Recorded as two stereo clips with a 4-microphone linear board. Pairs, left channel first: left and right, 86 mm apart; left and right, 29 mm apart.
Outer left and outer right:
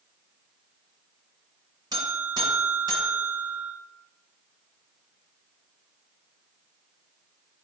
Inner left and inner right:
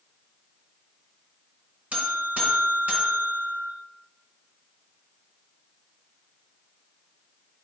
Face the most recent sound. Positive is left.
turn(degrees=-50)  # may be behind; listen again after turning